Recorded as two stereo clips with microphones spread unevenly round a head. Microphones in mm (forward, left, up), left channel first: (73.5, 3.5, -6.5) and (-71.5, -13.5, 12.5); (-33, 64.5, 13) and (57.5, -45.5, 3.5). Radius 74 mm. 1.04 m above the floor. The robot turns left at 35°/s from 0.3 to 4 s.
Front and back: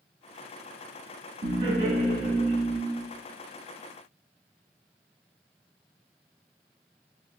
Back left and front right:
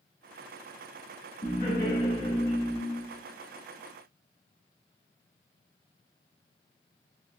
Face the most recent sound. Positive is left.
turn(degrees=80)